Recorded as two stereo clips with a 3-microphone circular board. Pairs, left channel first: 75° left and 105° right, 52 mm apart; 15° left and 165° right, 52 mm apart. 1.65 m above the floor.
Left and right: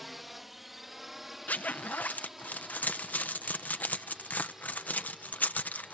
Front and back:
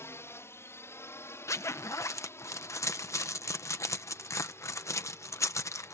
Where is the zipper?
20° left.